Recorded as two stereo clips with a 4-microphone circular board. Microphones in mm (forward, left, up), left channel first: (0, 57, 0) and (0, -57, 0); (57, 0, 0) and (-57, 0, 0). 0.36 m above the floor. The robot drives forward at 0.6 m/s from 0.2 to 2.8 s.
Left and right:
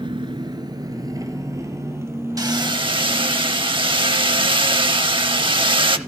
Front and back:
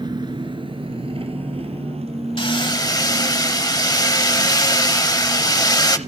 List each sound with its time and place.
0.0 s an engine running: 135° right, 1.2 m; by 6.1 s 160° right, 2.5 m
2.4 s hammering: 35° right, 0.8 m; by 6.0 s 50° right, 0.6 m